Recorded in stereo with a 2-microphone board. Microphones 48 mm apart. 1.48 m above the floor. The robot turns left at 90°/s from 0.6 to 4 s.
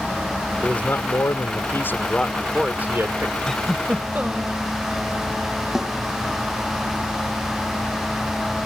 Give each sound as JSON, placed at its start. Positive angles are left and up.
{"t": 0.6, "sound": "a man speaking", "azimuth_deg": 160}
{"t": 3.5, "sound": "a giggle", "azimuth_deg": 10}
{"t": 5.8, "sound": "a snare drum", "side_deg": -15}